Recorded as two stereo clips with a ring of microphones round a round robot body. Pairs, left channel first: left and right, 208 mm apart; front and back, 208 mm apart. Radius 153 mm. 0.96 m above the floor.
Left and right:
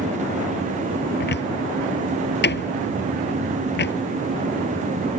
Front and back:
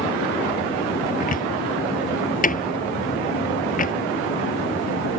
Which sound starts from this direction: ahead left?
A cupboard door, at 1.2 s.